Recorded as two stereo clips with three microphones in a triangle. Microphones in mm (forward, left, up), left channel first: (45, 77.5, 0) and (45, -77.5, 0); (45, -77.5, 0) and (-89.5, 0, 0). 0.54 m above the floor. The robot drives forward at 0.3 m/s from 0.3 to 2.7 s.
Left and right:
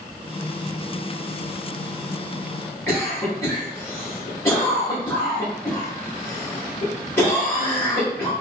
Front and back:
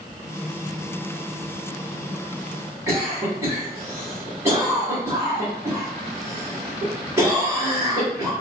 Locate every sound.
2.9 s a cough: 120° left, 1.0 m